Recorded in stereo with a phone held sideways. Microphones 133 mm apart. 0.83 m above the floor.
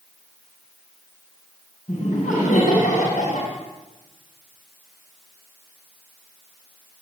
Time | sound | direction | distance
1.9 | laughter | 75° left (ahead or behind) | 6 m